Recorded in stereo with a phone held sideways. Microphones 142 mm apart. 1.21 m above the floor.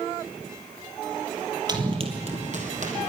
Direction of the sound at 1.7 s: 30° right (ahead or behind).